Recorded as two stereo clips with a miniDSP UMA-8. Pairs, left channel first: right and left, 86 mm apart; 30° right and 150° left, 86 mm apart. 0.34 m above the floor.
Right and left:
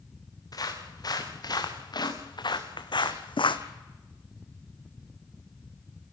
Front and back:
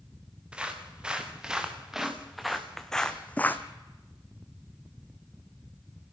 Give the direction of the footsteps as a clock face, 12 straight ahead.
4 o'clock.